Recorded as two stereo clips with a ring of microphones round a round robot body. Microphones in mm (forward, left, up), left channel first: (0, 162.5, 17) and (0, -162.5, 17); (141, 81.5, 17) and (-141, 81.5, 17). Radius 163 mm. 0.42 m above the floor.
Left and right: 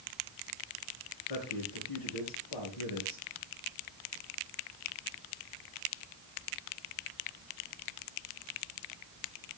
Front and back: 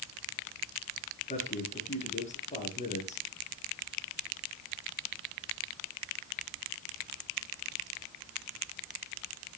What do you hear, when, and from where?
1.3 s a man speaking: 65° left, 6 m